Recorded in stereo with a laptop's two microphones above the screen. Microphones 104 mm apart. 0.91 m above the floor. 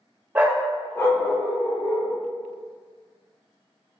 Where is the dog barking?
15° right (ahead or behind), 0.7 m; by 2.1 s 50° left (ahead or behind), 1.7 m.